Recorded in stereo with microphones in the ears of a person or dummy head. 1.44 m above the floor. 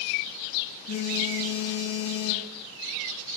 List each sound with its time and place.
0.9 s a phone buzzing: 55° left (ahead or behind), 2 m